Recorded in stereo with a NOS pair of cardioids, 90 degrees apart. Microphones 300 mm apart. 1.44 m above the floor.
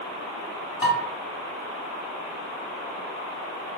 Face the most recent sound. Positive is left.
turn(degrees=30)